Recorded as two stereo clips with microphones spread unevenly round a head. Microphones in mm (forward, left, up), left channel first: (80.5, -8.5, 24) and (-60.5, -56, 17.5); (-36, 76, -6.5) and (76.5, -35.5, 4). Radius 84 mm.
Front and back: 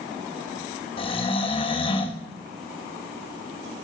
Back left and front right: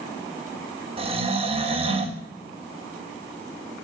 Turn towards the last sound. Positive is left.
turn(degrees=-15)